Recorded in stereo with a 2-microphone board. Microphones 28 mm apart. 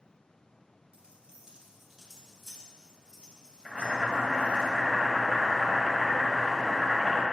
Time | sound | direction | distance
0.9 | keys jangling | 45° right (ahead or behind) | 1.6 m
3.6 | boiling | 15° right (ahead or behind) | 1.4 m